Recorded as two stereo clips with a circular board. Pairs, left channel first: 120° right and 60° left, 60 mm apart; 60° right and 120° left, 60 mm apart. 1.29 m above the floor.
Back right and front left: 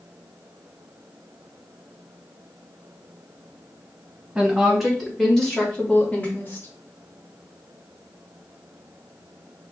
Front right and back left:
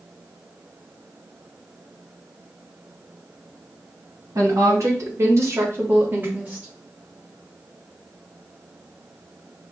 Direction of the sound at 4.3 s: 140° left.